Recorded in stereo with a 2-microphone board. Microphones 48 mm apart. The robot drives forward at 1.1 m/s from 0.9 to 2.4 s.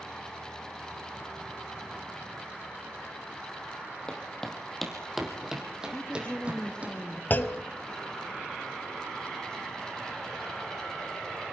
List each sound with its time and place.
4.1 s footsteps: 15° left (ahead or behind), 3.5 m; by 6.9 s 30° right (ahead or behind), 5 m
5.9 s a woman speaking: 25° left (ahead or behind), 2.5 m
7.3 s a clunk: 40° left (ahead or behind), 0.8 m